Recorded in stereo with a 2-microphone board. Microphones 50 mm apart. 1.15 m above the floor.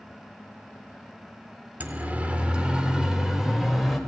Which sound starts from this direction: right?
A siren, at 1.8 s.